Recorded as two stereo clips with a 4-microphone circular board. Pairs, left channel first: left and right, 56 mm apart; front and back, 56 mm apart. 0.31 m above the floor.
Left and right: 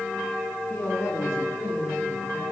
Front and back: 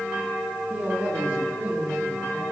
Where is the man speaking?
130° left, 3.5 m; by 2.4 s 125° left, 5.5 m.